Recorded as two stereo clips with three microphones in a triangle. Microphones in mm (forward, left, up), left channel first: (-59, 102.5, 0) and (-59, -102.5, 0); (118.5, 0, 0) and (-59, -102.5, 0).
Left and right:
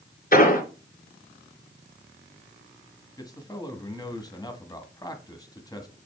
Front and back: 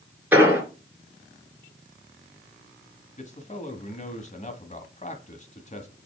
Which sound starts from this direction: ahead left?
A man speaking, at 3.2 s.